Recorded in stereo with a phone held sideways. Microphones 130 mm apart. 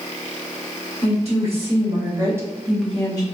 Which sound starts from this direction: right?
A woman speaking, at 1.0 s.